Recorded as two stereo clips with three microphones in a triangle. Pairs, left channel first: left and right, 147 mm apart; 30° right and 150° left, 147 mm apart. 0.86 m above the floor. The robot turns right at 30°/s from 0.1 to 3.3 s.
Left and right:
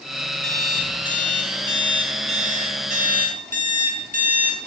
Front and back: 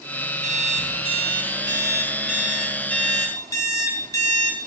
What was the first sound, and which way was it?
An alarm clock, 175° left.